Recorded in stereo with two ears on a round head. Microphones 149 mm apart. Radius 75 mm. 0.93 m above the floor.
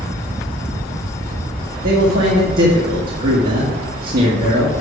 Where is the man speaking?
55° right (ahead or behind), 1.7 m.